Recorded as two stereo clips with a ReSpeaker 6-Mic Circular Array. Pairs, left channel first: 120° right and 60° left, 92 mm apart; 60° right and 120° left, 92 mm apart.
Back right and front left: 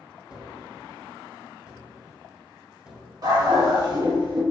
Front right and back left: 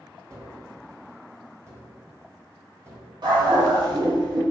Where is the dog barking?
95° left, 1.8 m.